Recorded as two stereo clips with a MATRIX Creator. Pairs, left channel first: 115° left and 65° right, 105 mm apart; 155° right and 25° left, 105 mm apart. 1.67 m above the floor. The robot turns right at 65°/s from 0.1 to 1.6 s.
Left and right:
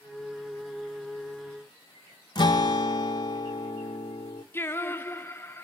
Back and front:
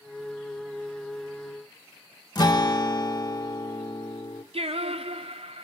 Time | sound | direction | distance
2.4 | a guitar | 155° left | 1.2 m
4.5 | singing | 45° left | 0.7 m